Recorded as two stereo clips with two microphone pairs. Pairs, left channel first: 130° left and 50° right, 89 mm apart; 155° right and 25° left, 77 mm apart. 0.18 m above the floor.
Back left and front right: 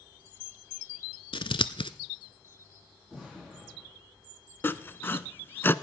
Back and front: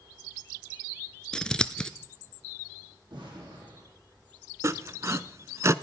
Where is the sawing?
65° left, 0.6 m.